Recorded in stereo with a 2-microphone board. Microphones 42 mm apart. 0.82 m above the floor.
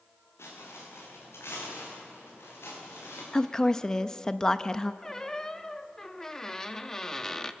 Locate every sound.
0.4 s footsteps: 80° left, 7.5 m; by 3.2 s 65° left (ahead or behind), 9 m
3.3 s a woman speaking: 10° left (ahead or behind), 0.5 m
5.0 s a squeak: 15° left (ahead or behind), 0.7 m